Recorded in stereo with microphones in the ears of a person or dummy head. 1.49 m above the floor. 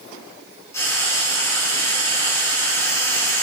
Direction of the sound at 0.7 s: 15° left (ahead or behind).